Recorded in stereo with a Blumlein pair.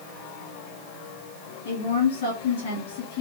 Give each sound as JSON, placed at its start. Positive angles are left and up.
{"t": 1.6, "sound": "a woman speaking", "azimuth_deg": 65, "distance_m": 2.0}